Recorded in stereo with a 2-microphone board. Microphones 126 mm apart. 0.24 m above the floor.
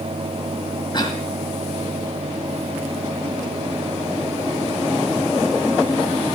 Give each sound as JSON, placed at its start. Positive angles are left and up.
{"t": 0.9, "sound": "a cough", "side_deg": 35, "distance_m": 1.5}